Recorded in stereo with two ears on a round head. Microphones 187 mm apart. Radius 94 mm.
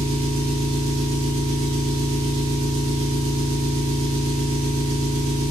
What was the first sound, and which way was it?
An engine running, 65° right (ahead or behind).